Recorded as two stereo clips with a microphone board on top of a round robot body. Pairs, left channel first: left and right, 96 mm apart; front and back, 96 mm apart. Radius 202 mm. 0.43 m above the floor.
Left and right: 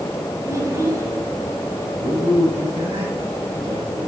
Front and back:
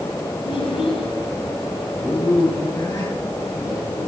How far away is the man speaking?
About 7.5 m.